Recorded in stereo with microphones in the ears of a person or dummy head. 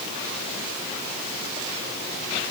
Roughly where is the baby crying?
No baby crying in this recording.